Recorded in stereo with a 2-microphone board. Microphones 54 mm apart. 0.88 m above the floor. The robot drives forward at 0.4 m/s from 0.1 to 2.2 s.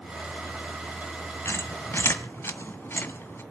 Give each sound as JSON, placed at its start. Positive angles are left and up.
{"t": 1.4, "sound": "a squeak", "side_deg": 55, "distance_m": 1.6}